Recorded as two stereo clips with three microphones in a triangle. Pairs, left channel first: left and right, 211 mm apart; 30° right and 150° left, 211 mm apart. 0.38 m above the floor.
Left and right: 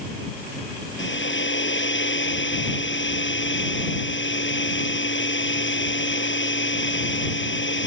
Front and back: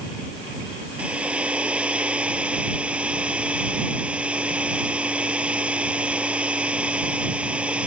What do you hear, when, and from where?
1.0 s a hair dryer: 65° left